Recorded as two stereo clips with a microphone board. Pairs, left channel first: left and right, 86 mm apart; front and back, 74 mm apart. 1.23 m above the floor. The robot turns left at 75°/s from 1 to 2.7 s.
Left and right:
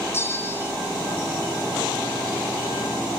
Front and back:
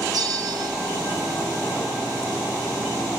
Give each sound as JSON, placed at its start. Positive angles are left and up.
{"t": 0.1, "sound": "a bell", "azimuth_deg": 150, "distance_m": 1.0}